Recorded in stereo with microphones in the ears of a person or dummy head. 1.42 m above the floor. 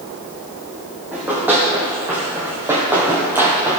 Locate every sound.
1.1 s running footsteps: 10° right (ahead or behind), 3 m; by 3.8 s 15° right (ahead or behind), 1.8 m